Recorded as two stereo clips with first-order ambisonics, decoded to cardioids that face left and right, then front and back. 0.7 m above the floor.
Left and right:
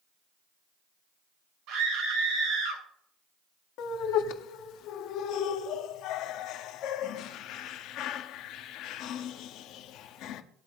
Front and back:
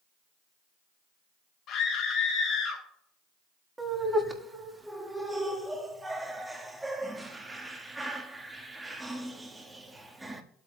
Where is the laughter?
100° left, 1.3 m.